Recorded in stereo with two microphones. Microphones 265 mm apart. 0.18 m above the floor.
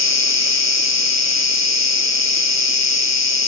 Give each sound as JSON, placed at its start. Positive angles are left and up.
{"t": 0.0, "sound": "an insect", "side_deg": 85, "distance_m": 1.3}